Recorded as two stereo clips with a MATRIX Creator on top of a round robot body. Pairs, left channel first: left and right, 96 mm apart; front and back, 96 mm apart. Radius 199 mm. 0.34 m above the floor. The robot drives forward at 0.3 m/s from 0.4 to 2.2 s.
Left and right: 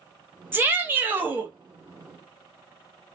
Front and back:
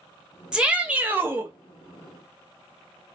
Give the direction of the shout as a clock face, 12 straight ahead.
4 o'clock.